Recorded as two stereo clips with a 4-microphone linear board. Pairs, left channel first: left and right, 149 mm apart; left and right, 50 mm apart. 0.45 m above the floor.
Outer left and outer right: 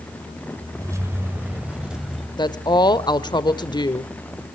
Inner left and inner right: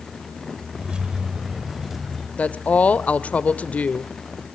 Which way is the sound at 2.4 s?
30° left (ahead or behind).